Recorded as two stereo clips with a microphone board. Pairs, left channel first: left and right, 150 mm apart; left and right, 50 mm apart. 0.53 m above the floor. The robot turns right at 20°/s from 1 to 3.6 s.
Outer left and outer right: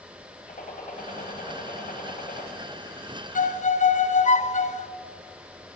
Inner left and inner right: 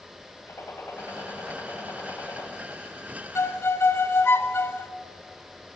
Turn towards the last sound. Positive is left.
turn(degrees=50)  # may be behind; listen again after turning